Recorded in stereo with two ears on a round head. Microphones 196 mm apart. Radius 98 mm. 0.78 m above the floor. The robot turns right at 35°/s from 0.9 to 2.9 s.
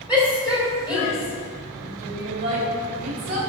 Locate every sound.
0.1 s a shout: 5° right (ahead or behind), 3 m; by 3.4 s 75° right (ahead or behind), 3 m